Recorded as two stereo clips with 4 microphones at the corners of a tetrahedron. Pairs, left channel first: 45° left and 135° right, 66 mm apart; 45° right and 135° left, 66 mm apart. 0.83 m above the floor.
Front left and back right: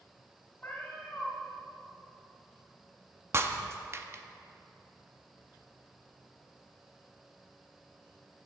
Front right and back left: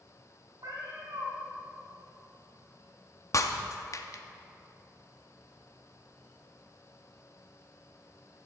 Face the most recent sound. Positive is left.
turn(degrees=-85)